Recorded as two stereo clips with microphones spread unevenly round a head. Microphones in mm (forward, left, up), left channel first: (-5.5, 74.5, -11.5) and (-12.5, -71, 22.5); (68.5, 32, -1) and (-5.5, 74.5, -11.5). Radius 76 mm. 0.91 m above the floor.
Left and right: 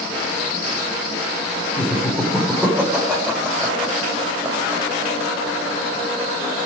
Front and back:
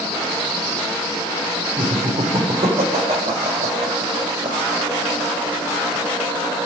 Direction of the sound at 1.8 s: 175° left.